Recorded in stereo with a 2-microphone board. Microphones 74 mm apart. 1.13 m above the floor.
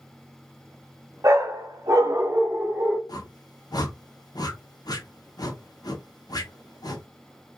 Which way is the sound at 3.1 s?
60° left (ahead or behind).